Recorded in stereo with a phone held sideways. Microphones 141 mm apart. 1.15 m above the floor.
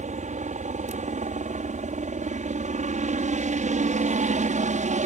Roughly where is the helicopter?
Right.